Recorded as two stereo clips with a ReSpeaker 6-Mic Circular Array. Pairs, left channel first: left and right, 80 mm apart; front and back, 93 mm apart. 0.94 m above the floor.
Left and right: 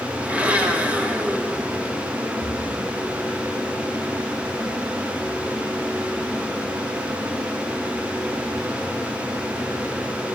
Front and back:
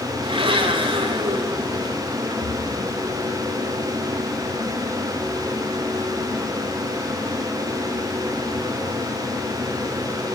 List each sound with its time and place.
0.2 s a blender: 165° right, 1.3 m
2.4 s a splash: 40° right, 1.8 m